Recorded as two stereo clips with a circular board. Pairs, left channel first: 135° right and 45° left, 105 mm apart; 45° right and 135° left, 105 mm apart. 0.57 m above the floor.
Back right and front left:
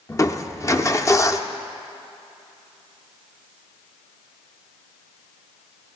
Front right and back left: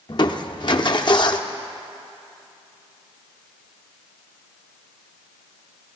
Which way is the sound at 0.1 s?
80° right.